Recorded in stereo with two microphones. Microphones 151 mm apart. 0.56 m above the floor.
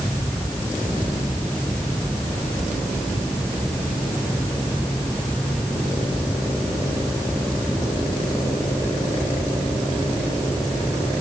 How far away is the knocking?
No knocking in this recording.